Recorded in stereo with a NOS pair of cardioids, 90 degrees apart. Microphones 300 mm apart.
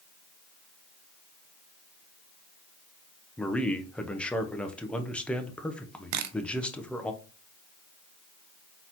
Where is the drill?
I don't hear a drill.